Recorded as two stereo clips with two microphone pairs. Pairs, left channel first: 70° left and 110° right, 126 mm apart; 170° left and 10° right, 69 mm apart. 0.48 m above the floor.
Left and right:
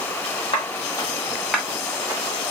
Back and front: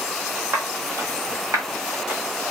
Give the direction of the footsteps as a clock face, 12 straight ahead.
11 o'clock.